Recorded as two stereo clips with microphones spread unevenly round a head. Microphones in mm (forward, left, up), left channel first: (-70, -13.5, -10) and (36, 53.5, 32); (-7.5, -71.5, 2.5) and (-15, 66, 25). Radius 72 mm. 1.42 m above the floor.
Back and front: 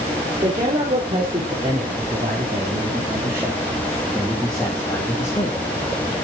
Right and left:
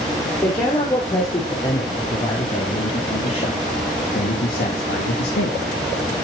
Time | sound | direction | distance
0.4 | a man speaking | 20° right | 5 m